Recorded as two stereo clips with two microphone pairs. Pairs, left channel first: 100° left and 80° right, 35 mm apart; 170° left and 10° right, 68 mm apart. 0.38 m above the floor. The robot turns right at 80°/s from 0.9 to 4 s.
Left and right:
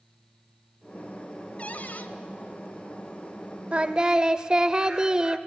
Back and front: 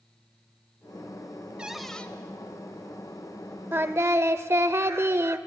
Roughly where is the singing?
Ahead right.